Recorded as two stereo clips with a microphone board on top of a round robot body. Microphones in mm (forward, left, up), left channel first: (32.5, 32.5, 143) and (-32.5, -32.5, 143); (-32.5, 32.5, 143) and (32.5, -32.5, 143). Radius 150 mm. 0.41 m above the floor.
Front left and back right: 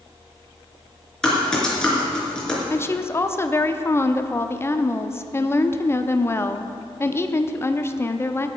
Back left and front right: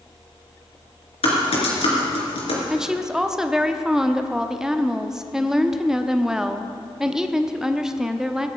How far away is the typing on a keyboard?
About 3.5 m.